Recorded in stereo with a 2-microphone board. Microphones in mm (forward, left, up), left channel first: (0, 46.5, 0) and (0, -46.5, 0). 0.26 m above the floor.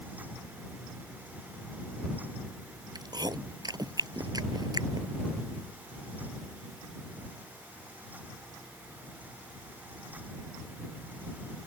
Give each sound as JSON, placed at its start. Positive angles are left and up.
{"t": 3.0, "sound": "chewing", "side_deg": -45}